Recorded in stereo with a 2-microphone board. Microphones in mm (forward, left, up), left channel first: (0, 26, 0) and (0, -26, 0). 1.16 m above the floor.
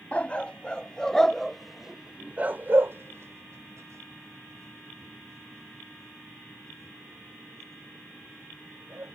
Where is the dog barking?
25° left (ahead or behind); by 9.1 s 60° right (ahead or behind).